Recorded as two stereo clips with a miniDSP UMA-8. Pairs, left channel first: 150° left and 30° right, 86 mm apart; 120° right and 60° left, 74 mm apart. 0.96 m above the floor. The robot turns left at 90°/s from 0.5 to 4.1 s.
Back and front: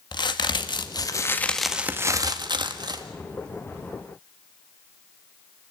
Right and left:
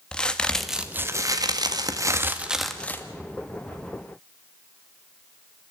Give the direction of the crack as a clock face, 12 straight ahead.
7 o'clock.